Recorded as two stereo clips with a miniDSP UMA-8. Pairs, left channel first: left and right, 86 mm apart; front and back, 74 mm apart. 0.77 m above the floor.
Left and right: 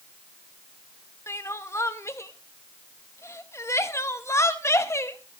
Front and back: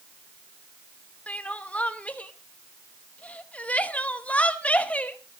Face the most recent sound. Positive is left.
turn(degrees=60)